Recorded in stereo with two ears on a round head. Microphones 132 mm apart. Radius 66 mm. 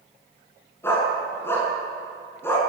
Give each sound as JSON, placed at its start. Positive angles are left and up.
{"t": 0.8, "sound": "a dog barking", "side_deg": 15, "distance_m": 8.0}